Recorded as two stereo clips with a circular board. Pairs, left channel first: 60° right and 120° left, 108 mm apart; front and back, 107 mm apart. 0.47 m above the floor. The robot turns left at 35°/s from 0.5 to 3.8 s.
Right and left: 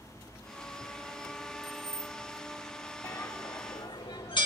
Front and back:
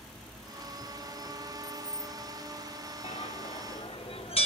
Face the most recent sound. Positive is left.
turn(degrees=-20)